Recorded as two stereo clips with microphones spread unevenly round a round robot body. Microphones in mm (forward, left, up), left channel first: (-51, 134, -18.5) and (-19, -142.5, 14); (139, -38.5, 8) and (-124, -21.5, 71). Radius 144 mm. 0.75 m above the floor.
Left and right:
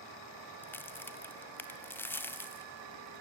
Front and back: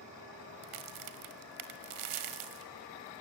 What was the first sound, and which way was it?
A crack, straight behind.